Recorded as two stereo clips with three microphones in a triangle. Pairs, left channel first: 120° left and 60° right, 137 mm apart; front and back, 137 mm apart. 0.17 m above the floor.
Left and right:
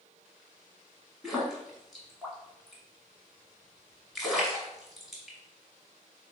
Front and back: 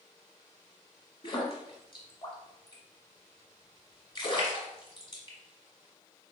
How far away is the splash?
About 1.2 m.